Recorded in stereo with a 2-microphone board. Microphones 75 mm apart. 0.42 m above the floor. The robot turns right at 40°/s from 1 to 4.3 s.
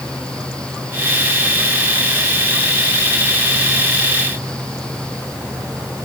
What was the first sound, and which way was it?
Only background noise.